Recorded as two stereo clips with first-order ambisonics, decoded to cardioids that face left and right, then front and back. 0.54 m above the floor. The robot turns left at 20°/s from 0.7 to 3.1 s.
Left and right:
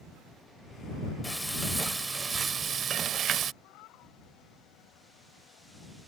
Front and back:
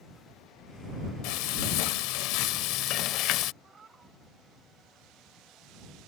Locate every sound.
1.2 s frying: 5° left; by 3.5 s 30° right
3.6 s a cat meowing: 110° left